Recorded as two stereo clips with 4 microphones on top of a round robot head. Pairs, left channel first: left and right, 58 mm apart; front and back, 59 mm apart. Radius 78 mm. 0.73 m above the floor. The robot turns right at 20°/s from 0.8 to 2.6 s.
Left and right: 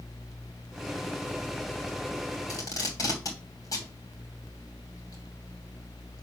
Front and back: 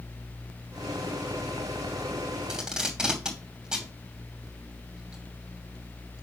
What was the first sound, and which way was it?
Tape being pulled, 100° left.